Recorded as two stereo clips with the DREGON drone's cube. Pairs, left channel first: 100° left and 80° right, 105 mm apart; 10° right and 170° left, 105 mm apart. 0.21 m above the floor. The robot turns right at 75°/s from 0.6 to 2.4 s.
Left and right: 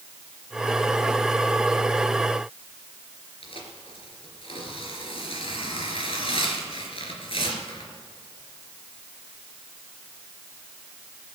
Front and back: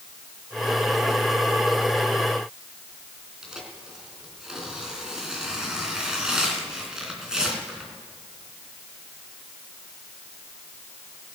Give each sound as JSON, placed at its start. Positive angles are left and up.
{"t": 3.4, "sound": "tearing paper", "azimuth_deg": 85, "distance_m": 3.0}